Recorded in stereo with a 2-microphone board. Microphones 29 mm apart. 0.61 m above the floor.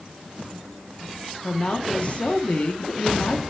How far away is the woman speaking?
About 0.7 m.